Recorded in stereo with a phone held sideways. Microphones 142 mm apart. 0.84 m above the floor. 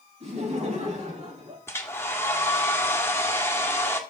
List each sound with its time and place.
0.2 s laughter: 50° right (ahead or behind), 5 m
1.7 s a hair dryer: 15° left (ahead or behind), 1.7 m